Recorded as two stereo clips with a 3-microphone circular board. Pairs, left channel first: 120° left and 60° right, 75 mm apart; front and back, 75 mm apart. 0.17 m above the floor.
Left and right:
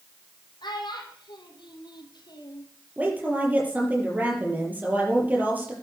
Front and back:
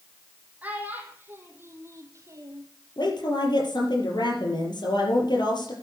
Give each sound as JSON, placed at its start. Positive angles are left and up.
{"t": 0.6, "sound": "a child speaking", "azimuth_deg": 110, "distance_m": 4.0}
{"t": 3.0, "sound": "a woman speaking", "azimuth_deg": 5, "distance_m": 4.5}